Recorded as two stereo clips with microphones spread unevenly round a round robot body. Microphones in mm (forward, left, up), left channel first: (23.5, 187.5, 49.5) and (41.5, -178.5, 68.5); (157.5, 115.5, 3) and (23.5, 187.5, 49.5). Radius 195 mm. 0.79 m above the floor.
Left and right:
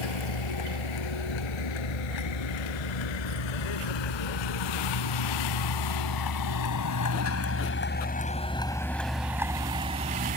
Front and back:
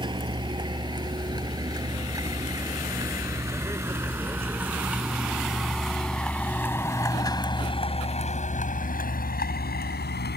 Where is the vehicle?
95° left; by 10.4 s 20° right.